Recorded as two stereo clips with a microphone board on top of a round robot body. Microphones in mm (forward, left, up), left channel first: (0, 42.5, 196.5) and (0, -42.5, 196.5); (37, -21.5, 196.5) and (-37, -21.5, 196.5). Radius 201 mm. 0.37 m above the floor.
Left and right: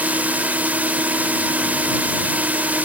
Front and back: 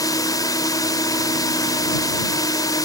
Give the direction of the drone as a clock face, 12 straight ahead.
1 o'clock.